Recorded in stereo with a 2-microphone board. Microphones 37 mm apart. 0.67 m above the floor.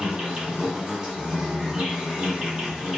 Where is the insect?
20° right (ahead or behind), 1.2 m.